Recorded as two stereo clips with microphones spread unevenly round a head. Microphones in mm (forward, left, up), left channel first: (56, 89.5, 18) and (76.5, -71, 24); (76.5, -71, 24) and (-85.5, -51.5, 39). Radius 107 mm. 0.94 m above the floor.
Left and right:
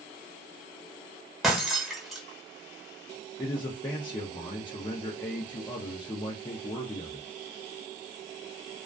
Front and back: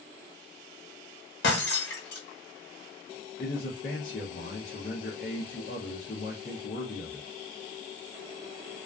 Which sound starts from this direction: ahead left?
A man speaking, at 3.4 s.